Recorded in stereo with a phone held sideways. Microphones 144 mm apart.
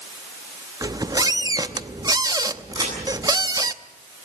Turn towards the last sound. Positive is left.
turn(degrees=-25)  # may be behind; listen again after turning